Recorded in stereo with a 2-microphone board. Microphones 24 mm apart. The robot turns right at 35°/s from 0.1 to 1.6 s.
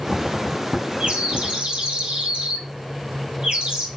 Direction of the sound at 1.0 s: 55° right (ahead or behind).